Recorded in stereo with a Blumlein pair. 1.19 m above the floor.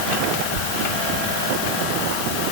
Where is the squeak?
50° right, 1.0 m.